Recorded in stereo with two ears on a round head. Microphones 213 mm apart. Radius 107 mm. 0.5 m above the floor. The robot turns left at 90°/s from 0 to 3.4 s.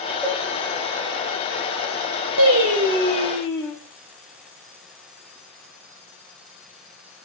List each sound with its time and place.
0.2 s a cowbell: 5° right (ahead or behind), 3 m; by 0.4 s 10° left (ahead or behind), 3 m
2.4 s singing: 105° right, 3.5 m; by 3.7 s 165° left, 3.5 m